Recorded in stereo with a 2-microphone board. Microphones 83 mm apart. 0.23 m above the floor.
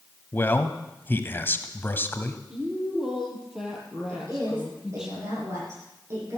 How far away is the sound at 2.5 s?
About 5 m.